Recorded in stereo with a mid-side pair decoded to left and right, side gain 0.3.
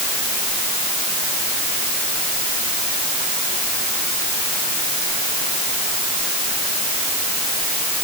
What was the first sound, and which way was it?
Only background noise.